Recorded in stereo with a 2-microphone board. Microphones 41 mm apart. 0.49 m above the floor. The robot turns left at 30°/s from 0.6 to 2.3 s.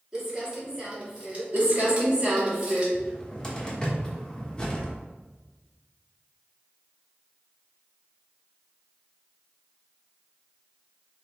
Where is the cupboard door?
20° left (ahead or behind), 1.1 m.